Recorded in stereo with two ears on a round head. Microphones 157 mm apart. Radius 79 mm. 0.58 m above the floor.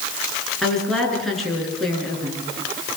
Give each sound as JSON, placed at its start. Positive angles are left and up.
{"t": 0.6, "sound": "a woman speaking", "side_deg": 0, "distance_m": 10.0}